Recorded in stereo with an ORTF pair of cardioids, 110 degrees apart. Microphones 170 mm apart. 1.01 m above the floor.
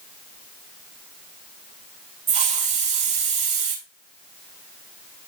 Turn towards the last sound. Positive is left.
turn(degrees=-45)